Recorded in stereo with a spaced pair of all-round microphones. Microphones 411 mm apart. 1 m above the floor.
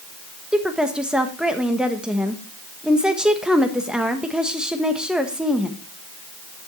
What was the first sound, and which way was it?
A woman speaking, centre (ahead or behind).